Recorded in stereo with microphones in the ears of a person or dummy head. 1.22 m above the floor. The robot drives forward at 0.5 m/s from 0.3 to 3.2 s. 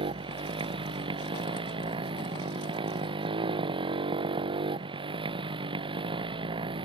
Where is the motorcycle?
30° right (ahead or behind).